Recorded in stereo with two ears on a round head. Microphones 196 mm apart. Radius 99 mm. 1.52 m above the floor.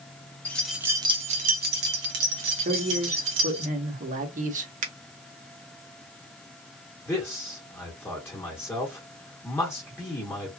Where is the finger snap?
40° right (ahead or behind), 0.7 m.